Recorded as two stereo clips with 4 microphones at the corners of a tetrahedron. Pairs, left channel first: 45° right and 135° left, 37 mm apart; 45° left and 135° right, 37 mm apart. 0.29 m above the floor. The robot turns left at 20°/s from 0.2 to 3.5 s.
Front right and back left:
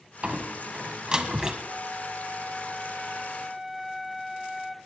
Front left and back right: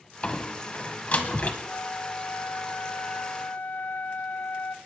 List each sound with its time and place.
0.2 s a door slam: 95° left, 1.6 m; by 1.6 s 65° left, 1.6 m
1.7 s a flute: 80° left, 0.7 m; by 4.8 s 40° left, 0.7 m